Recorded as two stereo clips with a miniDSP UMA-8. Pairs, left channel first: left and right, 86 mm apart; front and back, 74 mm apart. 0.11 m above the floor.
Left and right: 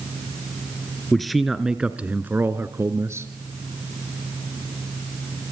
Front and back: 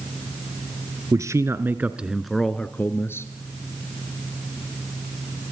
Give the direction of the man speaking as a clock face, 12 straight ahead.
6 o'clock.